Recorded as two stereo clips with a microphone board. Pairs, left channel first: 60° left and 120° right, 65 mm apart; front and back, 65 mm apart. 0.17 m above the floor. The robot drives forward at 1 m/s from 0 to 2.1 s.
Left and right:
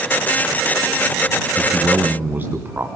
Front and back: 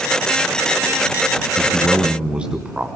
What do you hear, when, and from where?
1.6 s a man speaking: 80° right, 1.5 m; by 2.9 s 120° right, 1.5 m